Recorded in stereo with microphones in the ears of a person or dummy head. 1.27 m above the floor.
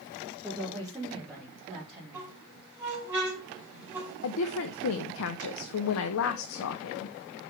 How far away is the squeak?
About 4 m.